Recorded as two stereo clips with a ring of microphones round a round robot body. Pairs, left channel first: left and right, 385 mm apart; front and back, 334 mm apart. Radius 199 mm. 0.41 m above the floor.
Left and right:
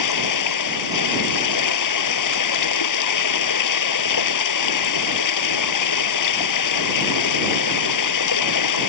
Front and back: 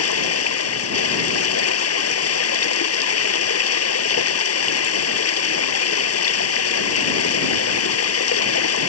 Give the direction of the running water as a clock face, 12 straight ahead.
10 o'clock.